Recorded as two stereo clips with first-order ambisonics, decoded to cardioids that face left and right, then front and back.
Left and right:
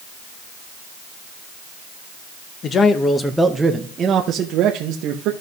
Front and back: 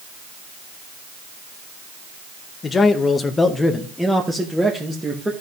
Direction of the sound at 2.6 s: 55° left.